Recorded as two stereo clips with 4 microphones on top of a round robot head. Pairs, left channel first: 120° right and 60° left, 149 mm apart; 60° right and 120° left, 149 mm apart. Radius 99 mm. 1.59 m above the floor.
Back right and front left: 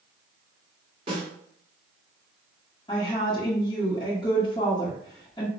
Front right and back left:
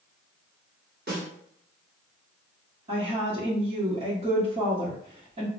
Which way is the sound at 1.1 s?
110° left.